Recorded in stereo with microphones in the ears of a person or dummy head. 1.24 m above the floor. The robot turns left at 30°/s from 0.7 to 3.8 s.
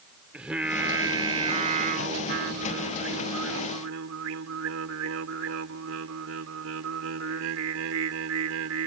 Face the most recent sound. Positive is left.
turn(degrees=-95)